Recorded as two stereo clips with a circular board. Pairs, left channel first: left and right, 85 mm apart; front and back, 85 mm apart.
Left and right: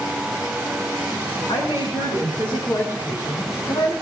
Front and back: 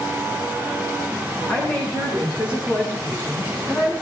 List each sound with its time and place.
1.5 s a woman speaking: 65° left, 6 m; by 3.9 s 60° left, 5 m